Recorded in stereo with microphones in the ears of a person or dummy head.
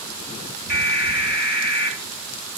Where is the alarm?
55° left (ahead or behind), 7 m.